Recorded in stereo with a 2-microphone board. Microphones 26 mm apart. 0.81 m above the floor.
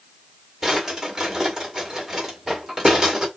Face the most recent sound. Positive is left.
turn(degrees=-10)  # may be behind; listen again after turning